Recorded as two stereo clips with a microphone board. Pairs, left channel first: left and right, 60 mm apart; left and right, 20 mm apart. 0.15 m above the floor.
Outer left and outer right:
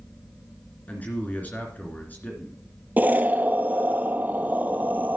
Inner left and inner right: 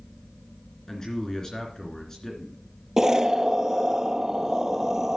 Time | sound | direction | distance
0.9 | a man speaking | 30° left (ahead or behind) | 2.5 m
3.0 | an explosion | 30° right (ahead or behind) | 0.6 m